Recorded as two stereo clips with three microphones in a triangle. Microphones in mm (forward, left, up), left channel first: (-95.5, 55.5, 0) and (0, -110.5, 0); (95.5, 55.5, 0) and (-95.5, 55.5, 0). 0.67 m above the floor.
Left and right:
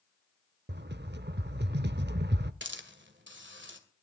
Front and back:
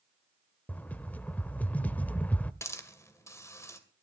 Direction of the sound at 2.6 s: 75° right.